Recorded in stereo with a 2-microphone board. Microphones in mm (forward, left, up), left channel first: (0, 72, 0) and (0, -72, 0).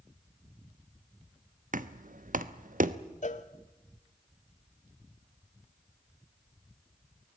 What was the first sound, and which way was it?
Knocking, 70° right (ahead or behind).